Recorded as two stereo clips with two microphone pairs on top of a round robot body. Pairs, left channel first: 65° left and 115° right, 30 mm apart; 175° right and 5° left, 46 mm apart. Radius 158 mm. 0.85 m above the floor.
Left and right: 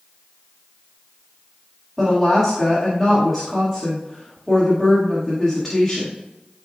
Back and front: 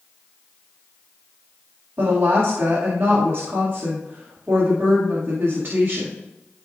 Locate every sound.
2.0 s a woman speaking: 25° right, 2 m